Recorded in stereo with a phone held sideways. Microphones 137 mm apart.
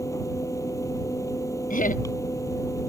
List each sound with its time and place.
0.0 s a fan: 20° left (ahead or behind)
1.7 s laughter: 75° left (ahead or behind)